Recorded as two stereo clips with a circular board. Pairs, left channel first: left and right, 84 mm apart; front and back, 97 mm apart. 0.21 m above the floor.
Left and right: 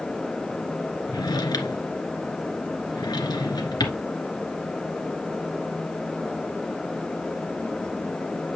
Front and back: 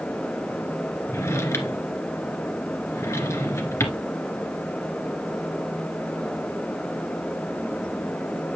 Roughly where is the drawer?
Ahead left.